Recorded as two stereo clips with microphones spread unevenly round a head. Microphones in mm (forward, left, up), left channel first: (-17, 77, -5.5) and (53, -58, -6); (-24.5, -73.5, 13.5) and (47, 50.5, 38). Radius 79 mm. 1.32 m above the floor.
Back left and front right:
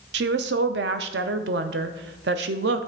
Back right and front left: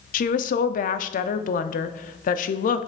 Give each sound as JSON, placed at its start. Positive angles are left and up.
{"t": 0.1, "sound": "a woman speaking", "azimuth_deg": -90, "distance_m": 0.6}